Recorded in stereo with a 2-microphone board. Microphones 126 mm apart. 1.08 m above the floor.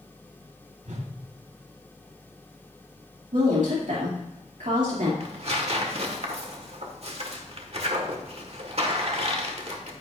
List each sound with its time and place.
0.8 s a whoosh: 70° right (ahead or behind), 2.5 m
3.3 s a woman speaking: 80° right, 2.5 m
5.2 s tearing paper: 55° right (ahead or behind), 1.5 m